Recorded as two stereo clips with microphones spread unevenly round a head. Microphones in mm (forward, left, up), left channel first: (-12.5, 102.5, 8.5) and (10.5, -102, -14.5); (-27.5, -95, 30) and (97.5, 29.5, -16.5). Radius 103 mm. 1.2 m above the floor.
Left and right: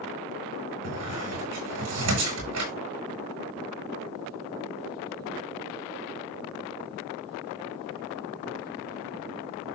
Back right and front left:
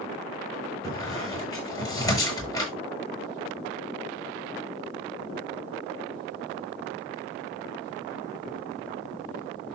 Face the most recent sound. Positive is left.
turn(degrees=-65)